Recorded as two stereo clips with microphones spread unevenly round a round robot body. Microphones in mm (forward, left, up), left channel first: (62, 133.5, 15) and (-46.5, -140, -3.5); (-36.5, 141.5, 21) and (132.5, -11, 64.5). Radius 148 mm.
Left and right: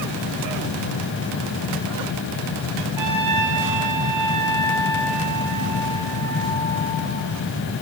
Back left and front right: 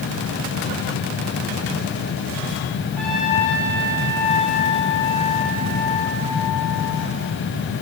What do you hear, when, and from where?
3.0 s a trumpet: 135° right, 6 m